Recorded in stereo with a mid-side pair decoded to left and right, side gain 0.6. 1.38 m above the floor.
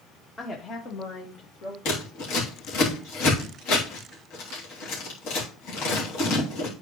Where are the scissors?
65° left, 3 m.